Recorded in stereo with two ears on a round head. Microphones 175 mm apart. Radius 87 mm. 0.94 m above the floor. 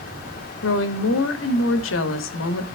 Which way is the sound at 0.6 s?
80° left.